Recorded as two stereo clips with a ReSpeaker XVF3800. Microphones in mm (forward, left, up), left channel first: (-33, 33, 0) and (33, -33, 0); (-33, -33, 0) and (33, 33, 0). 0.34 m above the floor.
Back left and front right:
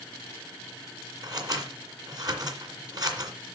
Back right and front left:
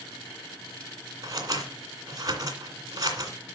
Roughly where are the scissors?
Ahead.